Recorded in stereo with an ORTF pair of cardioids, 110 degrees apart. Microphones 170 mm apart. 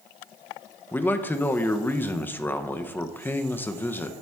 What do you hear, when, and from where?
0.9 s a man speaking: 10° left, 0.7 m